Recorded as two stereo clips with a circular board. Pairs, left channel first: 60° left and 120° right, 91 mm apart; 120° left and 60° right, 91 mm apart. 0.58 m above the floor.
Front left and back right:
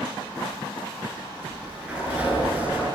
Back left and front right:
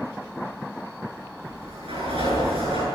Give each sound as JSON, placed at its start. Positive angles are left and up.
{"t": 1.4, "sound": "a sliding door", "azimuth_deg": -45, "distance_m": 10.0}